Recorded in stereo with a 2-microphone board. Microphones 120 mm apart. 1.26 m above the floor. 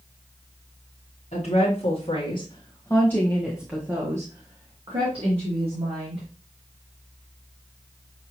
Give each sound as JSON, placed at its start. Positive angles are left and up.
{"t": 1.3, "sound": "a woman speaking", "side_deg": 65, "distance_m": 1.4}